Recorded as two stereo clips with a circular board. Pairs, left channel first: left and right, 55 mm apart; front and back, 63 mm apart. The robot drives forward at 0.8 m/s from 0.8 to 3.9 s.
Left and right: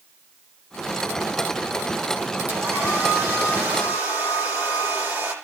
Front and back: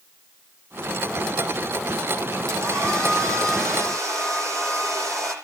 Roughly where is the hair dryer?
Behind right.